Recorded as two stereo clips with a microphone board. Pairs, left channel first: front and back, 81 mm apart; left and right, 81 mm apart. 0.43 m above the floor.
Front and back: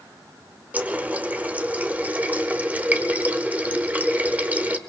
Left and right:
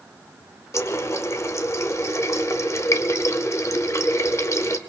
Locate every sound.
0.7 s a running tap: 120° left, 0.9 m